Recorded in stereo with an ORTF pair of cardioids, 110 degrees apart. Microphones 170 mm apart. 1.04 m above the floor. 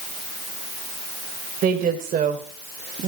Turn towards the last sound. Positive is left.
turn(degrees=-45)